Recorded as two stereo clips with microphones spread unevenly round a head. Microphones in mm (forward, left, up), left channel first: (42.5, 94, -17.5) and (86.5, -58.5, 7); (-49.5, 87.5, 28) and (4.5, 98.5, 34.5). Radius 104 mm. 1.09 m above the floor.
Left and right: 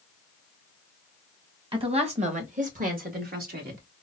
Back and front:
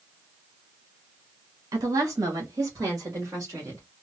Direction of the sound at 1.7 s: 15° right.